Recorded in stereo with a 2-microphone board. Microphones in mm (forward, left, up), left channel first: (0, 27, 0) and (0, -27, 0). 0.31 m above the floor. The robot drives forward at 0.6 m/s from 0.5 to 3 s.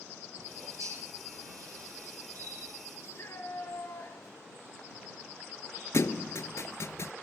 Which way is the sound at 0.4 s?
85° right.